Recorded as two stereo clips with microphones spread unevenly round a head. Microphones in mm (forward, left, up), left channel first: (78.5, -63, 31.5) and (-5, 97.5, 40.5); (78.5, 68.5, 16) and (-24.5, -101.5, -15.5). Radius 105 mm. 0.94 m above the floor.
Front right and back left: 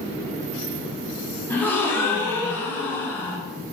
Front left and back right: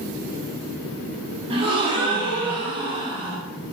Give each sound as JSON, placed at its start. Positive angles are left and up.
{"t": 1.5, "sound": "a gasp", "azimuth_deg": -130, "distance_m": 0.6}